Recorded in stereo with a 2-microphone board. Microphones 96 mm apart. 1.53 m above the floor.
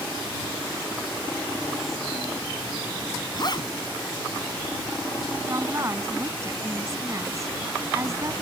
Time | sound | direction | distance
3.3 | a zipper | 50° left (ahead or behind) | ?
5.5 | a woman speaking | 30° right (ahead or behind) | ?